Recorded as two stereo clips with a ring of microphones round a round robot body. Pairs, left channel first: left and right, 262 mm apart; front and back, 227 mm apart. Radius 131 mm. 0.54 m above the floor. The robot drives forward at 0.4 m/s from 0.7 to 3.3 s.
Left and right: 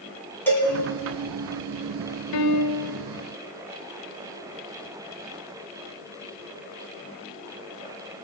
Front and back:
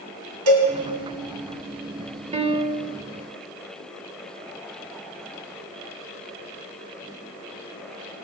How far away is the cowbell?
About 2.5 m.